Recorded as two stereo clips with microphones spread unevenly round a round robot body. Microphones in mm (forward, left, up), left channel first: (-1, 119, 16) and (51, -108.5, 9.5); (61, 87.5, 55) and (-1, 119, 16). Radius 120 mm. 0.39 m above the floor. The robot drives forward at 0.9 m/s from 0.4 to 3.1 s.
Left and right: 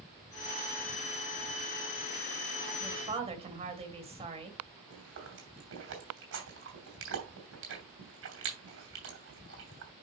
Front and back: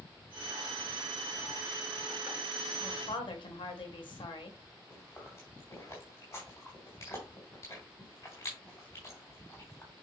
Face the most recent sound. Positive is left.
turn(degrees=-105)